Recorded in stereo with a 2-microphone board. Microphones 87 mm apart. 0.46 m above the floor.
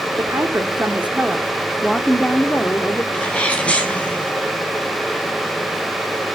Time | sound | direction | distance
0.2 | a woman speaking | 30° right (ahead or behind) | 1.4 m
3.1 | a sneeze | 15° left (ahead or behind) | 4.5 m